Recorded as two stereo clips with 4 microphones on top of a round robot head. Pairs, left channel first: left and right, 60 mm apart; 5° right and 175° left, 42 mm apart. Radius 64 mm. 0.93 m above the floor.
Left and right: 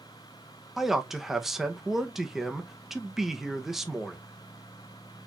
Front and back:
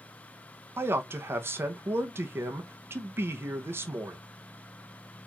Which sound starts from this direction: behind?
A man speaking, at 0.8 s.